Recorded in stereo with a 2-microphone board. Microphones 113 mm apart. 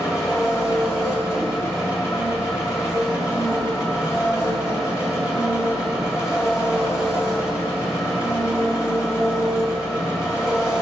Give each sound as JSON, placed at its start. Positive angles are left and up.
{"t": 0.0, "sound": "an engine running", "side_deg": 25, "distance_m": 2.5}